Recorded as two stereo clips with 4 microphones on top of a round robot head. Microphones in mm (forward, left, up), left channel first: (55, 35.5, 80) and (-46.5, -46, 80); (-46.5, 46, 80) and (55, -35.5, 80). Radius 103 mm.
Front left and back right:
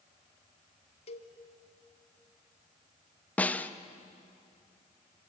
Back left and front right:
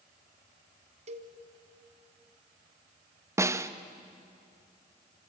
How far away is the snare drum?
About 1.1 m.